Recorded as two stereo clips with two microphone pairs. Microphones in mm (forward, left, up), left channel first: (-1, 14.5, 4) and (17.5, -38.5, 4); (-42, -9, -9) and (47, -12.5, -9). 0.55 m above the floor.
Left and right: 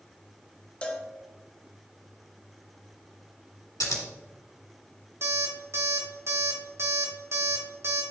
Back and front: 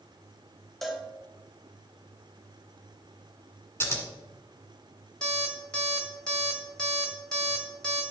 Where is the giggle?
No giggle in this recording.